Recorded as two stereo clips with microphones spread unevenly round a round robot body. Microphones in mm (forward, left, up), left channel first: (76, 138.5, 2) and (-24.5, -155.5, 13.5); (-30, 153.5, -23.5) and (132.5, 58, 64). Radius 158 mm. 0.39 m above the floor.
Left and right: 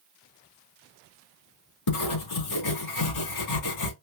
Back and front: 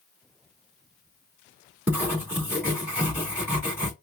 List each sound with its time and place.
1.9 s writing: 60° left, 3.5 m